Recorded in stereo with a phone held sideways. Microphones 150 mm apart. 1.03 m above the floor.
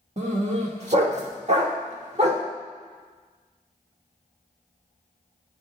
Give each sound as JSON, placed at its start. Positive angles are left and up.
{"t": 0.2, "sound": "a dog barking", "side_deg": -50, "distance_m": 1.2}